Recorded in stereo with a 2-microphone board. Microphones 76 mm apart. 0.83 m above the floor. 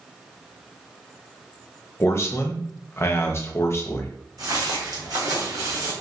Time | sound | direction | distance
2.0 | a man speaking | 35° left (ahead or behind) | 0.5 m
4.4 | footsteps | 55° right (ahead or behind) | 1.7 m